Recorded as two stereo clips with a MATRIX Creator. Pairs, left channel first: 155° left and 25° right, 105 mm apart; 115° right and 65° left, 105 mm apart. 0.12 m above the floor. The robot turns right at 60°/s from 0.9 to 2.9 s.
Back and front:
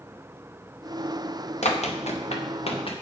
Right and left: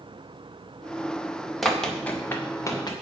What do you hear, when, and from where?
1.6 s running footsteps: 160° left, 2.5 m; by 2.9 s 165° right, 3 m